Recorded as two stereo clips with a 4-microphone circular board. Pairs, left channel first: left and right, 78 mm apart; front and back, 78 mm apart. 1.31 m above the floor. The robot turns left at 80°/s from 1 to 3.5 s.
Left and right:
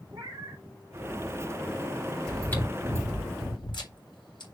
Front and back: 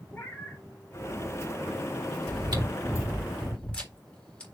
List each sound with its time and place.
0.1 s a cat meowing: 65° right, 2.5 m
2.3 s chewing: 175° left, 4 m; by 4.5 s 75° left, 4 m